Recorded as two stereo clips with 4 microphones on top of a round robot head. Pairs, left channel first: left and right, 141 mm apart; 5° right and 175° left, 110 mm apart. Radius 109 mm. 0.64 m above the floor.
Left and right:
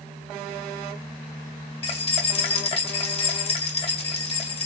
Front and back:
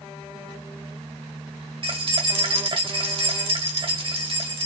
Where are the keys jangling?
135° left, 1.6 m.